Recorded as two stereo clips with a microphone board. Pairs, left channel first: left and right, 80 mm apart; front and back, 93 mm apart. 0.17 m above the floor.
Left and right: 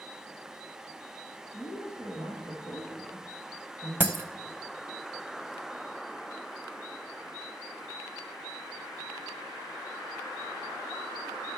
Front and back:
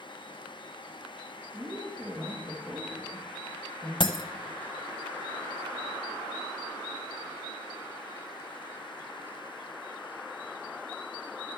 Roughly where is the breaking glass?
Ahead right.